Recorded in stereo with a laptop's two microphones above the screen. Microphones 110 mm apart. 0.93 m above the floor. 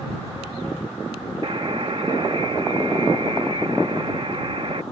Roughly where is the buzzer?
Right.